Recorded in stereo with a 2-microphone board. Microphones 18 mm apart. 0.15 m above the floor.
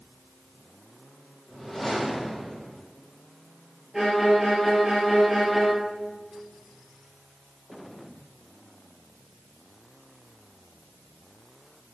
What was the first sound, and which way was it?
A whoosh, 5° left (ahead or behind).